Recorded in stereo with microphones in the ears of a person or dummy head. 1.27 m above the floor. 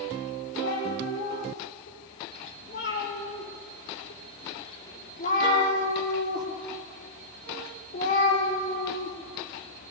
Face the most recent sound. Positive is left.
turn(degrees=45)  # may be behind; listen again after turning